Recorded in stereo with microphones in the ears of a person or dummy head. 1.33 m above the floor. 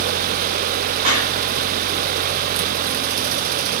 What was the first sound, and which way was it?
A clap, 40° right (ahead or behind).